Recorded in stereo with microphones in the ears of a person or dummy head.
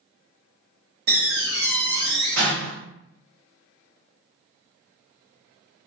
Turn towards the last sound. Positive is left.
turn(degrees=-60)  # may be behind; listen again after turning